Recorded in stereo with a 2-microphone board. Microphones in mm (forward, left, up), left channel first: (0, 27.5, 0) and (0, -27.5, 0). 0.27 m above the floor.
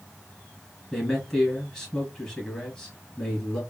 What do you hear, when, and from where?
0.9 s a man speaking: 15° left (ahead or behind), 3 m